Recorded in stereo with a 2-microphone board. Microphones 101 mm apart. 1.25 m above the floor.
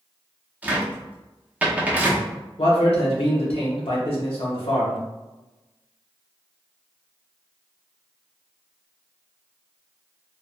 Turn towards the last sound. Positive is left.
turn(degrees=65)  # may be behind; listen again after turning